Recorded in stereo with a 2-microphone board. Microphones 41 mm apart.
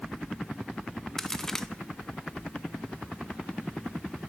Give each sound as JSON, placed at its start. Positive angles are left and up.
{"t": 1.2, "sound": "a crack", "side_deg": 10, "distance_m": 0.9}